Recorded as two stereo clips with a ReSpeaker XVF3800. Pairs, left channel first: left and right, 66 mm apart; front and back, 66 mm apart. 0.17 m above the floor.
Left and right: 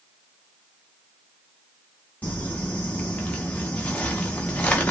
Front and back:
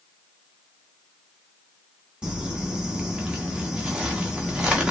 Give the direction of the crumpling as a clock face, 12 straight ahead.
8 o'clock.